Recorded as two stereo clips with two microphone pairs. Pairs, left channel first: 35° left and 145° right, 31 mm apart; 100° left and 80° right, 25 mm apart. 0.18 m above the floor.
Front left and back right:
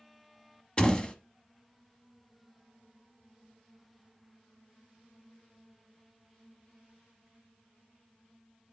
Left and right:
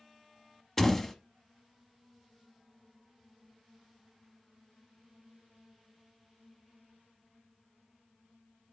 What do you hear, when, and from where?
0.8 s a door slam: 30° left, 0.9 m